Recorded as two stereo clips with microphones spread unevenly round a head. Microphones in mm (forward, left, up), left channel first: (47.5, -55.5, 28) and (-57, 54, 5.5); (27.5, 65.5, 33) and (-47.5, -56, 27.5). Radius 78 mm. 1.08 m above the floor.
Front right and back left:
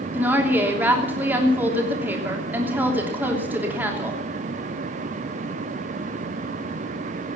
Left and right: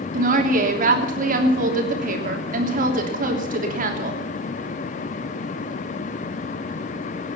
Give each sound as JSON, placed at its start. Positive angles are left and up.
{"t": 0.1, "sound": "a woman speaking", "azimuth_deg": -150, "distance_m": 3.0}